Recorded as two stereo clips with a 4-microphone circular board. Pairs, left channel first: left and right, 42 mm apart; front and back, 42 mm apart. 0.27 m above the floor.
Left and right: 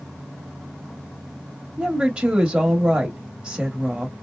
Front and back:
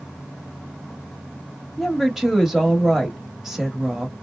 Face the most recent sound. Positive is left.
turn(degrees=-115)